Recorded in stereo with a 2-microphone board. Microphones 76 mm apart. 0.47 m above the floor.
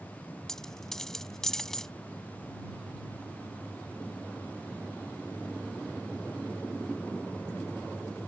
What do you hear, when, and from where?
0.5 s a dropped coin: 5° left (ahead or behind)